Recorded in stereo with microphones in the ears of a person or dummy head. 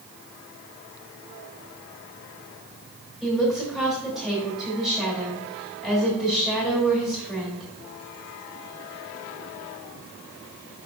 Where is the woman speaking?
Centre (ahead or behind), 3.5 m.